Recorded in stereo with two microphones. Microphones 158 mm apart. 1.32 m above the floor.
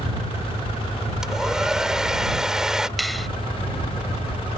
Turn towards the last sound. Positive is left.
turn(degrees=0)  # may be behind; listen again after turning